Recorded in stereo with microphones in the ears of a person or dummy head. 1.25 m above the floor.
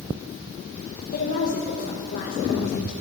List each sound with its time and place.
1.1 s a woman speaking: 45° left (ahead or behind), 1.5 m